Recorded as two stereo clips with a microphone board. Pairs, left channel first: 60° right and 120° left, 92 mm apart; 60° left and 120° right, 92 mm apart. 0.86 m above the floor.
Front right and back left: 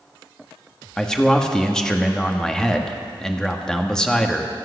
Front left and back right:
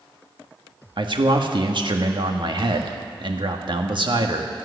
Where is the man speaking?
145° right, 1.4 m.